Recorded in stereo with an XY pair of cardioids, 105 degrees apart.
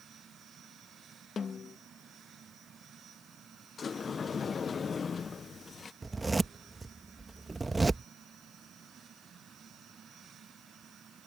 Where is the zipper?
20° right.